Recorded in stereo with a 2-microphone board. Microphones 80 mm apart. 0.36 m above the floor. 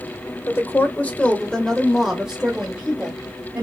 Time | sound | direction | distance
0.5 | a woman speaking | 30° left (ahead or behind) | 1.1 m